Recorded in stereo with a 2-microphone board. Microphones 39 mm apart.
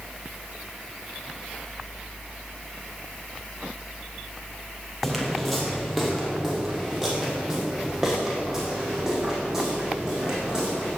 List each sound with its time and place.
5.0 s footsteps: 5° left (ahead or behind), 3 m; by 11.0 s 15° right (ahead or behind), 6.5 m